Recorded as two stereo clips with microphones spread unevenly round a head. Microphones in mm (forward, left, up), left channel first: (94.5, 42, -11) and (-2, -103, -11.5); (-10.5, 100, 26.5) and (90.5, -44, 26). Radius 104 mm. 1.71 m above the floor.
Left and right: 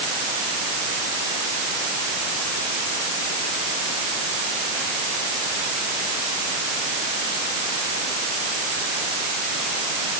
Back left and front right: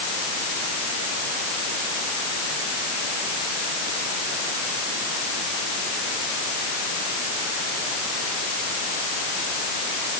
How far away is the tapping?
No tapping in this recording.